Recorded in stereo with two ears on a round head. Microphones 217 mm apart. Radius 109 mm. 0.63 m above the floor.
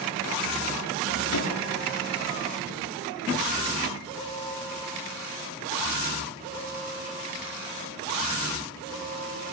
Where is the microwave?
85° left, 7.5 m.